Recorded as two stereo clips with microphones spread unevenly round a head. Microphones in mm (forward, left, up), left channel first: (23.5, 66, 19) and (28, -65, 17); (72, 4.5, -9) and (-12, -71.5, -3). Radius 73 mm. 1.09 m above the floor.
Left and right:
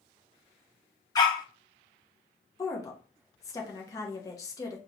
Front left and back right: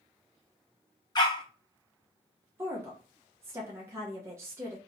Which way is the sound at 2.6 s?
155° left.